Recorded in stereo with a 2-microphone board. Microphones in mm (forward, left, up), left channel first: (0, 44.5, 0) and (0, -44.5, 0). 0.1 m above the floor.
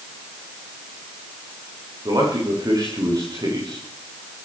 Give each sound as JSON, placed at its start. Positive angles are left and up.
{"t": 2.0, "sound": "a man speaking", "side_deg": -45, "distance_m": 8.5}